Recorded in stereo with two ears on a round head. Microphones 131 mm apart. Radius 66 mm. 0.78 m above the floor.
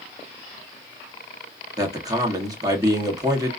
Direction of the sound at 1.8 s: 25° right (ahead or behind).